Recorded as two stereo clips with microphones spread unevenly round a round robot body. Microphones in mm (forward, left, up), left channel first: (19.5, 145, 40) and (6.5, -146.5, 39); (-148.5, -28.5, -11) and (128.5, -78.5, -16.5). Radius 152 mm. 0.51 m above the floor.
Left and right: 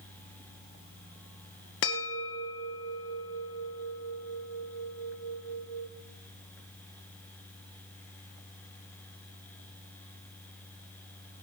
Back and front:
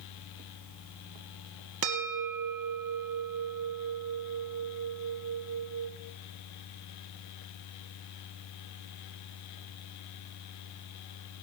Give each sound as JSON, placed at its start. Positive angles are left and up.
{"t": 1.8, "sound": "a bell", "azimuth_deg": 35, "distance_m": 1.9}